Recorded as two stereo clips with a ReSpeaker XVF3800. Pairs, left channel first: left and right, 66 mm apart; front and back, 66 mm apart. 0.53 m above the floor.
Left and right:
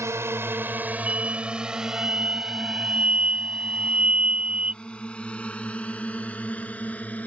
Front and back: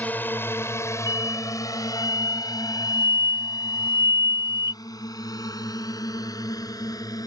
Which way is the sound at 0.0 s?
60° right.